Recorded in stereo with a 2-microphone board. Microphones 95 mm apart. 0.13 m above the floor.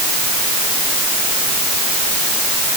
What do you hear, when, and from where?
Only background noise.